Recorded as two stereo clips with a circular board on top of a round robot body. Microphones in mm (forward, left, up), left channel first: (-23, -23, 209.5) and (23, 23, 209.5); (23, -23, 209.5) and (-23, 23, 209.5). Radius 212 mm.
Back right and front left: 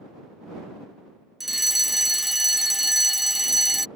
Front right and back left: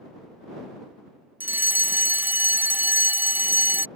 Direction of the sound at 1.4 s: 130° left.